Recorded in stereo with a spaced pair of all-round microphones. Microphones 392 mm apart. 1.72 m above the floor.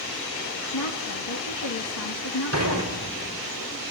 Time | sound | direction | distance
0.7 | a woman speaking | 75° left (ahead or behind) | 2.5 m
2.5 | dishes clattering | 40° right (ahead or behind) | 4.5 m